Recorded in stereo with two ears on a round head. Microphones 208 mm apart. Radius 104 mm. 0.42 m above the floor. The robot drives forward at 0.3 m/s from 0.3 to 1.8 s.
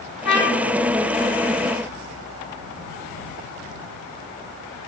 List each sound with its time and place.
0.2 s a trumpet: 50° left (ahead or behind), 1.5 m